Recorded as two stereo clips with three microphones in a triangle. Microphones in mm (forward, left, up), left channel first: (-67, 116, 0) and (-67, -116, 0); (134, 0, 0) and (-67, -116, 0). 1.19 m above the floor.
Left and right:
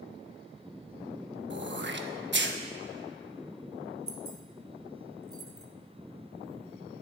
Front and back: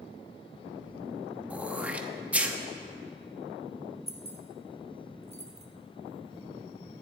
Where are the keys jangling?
85° right, 1.2 m.